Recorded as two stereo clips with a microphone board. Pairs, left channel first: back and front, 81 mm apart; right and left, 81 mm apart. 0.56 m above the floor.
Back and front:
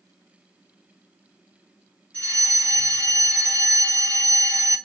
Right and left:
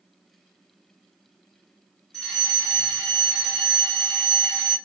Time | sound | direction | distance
2.1 | a fire alarm | 155° right | 2 m